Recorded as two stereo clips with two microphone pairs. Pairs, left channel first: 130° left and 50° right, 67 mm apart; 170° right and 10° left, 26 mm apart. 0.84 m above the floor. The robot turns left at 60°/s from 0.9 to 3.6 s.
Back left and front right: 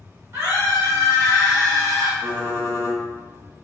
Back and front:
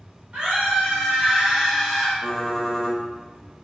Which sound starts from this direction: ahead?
A scream, at 0.3 s.